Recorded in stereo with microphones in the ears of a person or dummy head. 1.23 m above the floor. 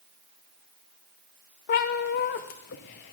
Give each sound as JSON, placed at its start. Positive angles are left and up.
{"t": 1.7, "sound": "a cat meowing", "side_deg": 45, "distance_m": 0.7}